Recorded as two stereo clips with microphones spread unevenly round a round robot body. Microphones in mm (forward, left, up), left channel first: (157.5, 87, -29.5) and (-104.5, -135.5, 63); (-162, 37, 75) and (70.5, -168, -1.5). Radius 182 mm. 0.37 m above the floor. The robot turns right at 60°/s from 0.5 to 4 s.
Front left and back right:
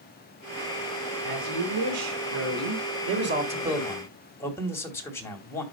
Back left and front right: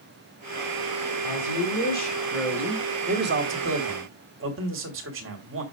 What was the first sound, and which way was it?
A woman speaking, 160° left.